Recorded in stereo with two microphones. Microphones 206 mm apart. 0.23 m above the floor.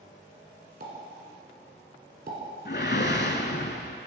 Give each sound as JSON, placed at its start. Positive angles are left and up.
{"t": 0.8, "sound": "a pop", "side_deg": -50, "distance_m": 1.8}
{"t": 2.6, "sound": "a whoosh", "side_deg": 55, "distance_m": 0.6}